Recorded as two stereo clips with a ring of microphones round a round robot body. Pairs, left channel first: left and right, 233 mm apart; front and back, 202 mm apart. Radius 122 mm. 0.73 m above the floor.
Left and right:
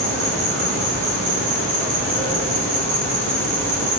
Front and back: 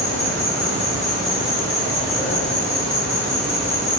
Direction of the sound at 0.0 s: 90° right.